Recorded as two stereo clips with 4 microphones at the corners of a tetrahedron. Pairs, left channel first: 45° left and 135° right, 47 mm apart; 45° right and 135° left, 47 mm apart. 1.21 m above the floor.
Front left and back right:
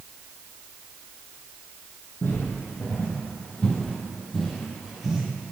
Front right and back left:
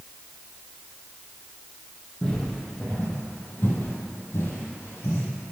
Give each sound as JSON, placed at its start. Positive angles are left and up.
{"t": 2.2, "sound": "footsteps", "azimuth_deg": 25, "distance_m": 2.0}